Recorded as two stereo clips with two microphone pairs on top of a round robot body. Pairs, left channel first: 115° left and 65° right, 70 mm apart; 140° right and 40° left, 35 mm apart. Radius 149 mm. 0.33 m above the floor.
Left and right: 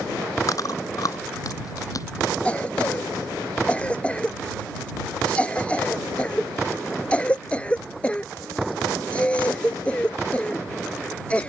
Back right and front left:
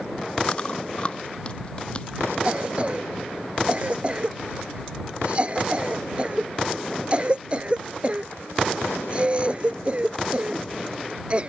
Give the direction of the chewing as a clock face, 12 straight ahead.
7 o'clock.